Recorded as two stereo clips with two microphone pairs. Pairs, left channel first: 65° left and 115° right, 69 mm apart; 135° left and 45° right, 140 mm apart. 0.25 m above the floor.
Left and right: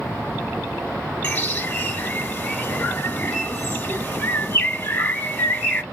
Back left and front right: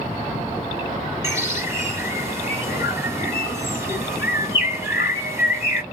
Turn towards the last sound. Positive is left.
turn(degrees=20)